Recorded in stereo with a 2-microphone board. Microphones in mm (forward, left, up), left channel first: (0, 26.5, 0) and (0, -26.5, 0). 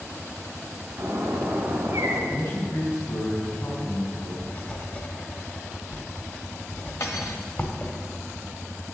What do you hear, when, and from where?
1.0 s a bird: 45° right (ahead or behind), 3.5 m
2.3 s a man speaking: 60° left (ahead or behind), 4 m
4.4 s writing: 35° left (ahead or behind), 1.5 m
7.0 s cutlery clinking: 75° left (ahead or behind), 1.6 m